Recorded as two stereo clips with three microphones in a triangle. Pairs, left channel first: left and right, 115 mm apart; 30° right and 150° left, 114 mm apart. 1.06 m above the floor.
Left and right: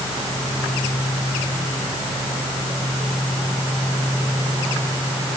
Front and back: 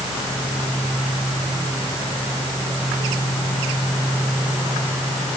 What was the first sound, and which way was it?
Only background noise.